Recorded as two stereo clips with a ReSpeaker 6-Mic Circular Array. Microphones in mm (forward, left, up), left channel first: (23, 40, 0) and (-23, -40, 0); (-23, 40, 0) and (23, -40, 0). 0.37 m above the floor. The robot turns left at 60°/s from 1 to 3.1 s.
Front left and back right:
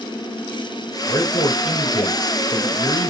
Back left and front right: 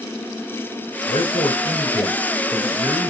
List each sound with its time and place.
1.1 s a man speaking: 120° left, 5 m; by 3.1 s straight ahead, 5 m